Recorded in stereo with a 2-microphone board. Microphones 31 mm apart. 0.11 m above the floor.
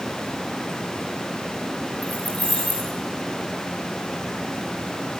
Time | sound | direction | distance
2.0 | keys jangling | 60° left (ahead or behind) | 9 m